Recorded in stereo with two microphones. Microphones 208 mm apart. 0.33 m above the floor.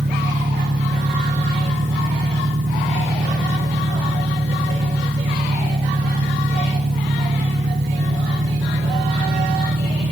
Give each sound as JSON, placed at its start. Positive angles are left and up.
{"t": 0.0, "sound": "an engine running", "side_deg": -60}